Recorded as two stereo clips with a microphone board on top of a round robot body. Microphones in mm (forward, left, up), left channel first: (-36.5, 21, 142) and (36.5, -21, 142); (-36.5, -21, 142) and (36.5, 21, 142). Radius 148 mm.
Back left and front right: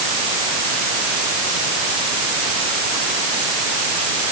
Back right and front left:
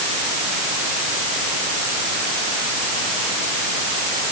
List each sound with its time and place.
Only background noise.